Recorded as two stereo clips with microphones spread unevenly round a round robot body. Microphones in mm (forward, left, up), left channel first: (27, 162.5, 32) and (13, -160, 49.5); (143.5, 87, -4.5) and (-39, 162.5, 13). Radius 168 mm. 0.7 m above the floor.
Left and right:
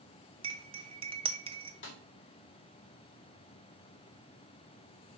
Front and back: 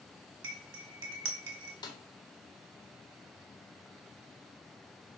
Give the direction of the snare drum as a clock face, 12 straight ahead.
11 o'clock.